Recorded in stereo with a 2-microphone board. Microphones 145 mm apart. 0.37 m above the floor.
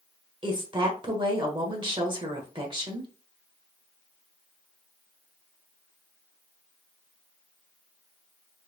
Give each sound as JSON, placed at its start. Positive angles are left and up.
{"t": 0.4, "sound": "a woman speaking", "side_deg": -35, "distance_m": 1.3}